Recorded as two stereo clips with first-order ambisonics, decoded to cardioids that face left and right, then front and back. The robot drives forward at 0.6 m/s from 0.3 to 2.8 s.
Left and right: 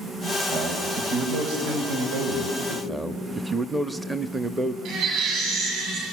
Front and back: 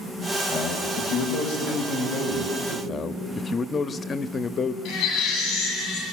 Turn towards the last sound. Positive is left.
turn(degrees=-50)